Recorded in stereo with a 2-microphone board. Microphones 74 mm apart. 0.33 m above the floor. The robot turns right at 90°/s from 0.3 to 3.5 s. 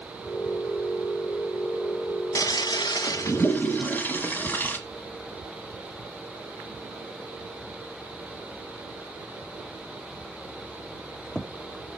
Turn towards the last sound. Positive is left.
turn(degrees=25)  # may be behind; listen again after turning